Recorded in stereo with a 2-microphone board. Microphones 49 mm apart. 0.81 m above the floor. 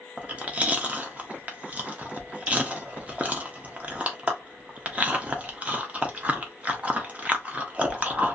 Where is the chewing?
25° right (ahead or behind), 0.6 m.